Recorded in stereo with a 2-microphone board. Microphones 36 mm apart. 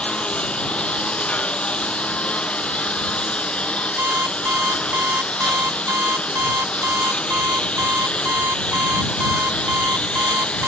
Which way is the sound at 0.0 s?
30° left (ahead or behind).